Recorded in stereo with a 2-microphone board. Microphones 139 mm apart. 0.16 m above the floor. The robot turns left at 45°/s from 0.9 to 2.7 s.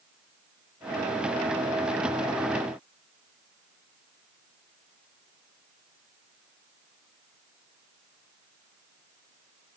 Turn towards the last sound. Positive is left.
No sound to turn to.